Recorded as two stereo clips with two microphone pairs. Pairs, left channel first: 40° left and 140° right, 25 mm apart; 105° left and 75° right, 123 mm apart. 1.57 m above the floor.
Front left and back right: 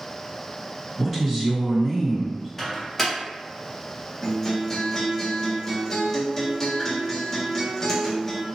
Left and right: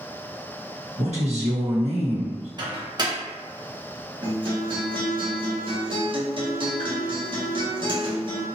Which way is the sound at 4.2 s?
30° right.